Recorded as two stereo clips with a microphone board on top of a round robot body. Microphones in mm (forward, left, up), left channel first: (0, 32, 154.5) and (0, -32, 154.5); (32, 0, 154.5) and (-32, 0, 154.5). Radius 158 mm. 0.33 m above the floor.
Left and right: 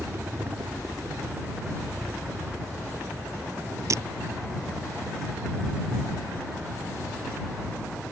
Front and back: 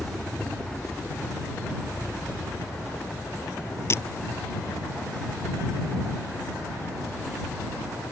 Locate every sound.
0.0 s a helicopter: 75° right; by 8.1 s 30° right
3.9 s breaking glass: 50° right